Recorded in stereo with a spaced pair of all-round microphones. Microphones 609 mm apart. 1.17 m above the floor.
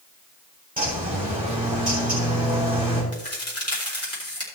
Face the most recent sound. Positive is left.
turn(degrees=25)  # may be behind; listen again after turning